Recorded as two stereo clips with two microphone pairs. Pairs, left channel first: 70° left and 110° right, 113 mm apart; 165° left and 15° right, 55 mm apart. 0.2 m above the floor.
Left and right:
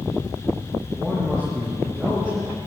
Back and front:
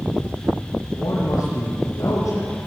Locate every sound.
0.9 s a man speaking: 155° left, 5 m